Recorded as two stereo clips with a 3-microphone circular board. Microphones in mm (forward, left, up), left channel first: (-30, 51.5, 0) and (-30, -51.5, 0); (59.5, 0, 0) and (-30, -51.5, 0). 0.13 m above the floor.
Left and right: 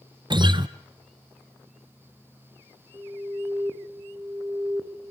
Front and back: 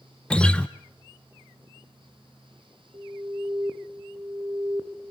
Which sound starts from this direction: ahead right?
A guitar, at 0.3 s.